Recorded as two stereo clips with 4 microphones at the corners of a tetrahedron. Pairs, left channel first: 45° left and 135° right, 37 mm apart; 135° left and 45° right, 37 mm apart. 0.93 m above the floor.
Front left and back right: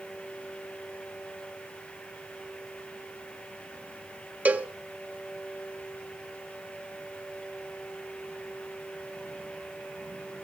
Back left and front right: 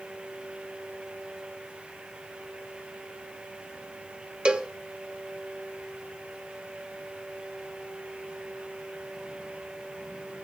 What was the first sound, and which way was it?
A cowbell, 110° right.